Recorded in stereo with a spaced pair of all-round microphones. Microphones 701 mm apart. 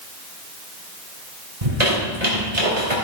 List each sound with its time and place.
1.6 s a squeak: 70° right (ahead or behind), 4 m